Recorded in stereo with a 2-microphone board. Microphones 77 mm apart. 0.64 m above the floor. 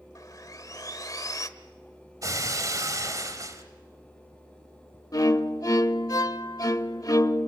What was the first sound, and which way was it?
Sawing, 50° left (ahead or behind).